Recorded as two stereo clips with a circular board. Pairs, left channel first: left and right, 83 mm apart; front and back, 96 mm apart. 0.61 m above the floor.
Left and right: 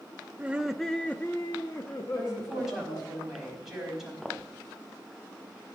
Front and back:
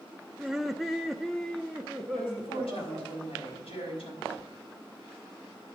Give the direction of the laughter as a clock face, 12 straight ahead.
4 o'clock.